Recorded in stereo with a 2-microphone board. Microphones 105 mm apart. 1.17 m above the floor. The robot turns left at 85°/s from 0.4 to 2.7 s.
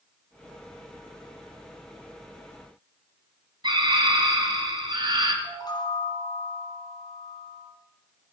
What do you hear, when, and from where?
3.6 s a scream: 45° right (ahead or behind), 2.5 m
5.4 s a chime: 40° left (ahead or behind), 2.5 m